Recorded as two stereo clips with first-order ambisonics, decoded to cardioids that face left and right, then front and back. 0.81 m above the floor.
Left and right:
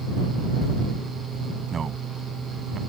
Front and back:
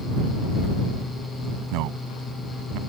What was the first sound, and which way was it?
A man speaking, 160° right.